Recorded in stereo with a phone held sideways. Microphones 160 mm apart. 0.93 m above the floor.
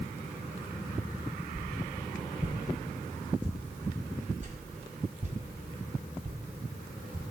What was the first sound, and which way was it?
A whoosh, 45° right (ahead or behind).